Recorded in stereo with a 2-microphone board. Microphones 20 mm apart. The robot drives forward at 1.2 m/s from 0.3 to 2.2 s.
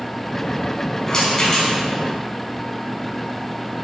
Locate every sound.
1.1 s a rattle: 30° left (ahead or behind), 5 m; by 1.8 s 35° left (ahead or behind), 4 m